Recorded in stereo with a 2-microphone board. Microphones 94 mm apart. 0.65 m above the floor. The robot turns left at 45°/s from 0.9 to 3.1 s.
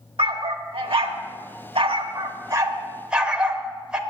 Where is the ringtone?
No ringtone in this recording.